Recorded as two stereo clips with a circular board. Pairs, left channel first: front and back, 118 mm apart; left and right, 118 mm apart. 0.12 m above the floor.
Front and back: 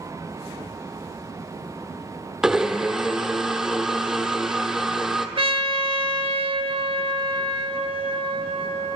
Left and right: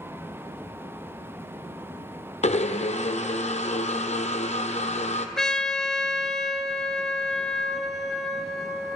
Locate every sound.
2.4 s a blender: 95° left, 0.9 m
5.4 s a trumpet: 175° left, 0.7 m